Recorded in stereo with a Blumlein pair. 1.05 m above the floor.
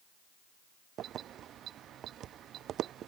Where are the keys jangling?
30° right.